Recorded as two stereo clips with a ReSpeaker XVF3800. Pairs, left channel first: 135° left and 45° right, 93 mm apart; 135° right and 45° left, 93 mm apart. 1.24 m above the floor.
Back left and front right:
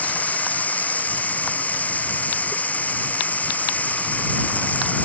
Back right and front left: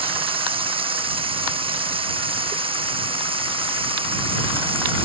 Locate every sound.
0.0 s running water: 60° left